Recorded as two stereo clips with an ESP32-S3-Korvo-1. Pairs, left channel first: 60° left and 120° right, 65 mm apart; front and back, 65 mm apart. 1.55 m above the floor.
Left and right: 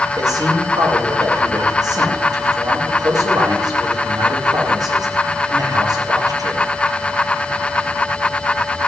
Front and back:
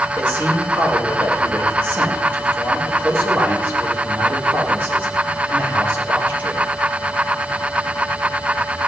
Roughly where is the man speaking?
Behind right.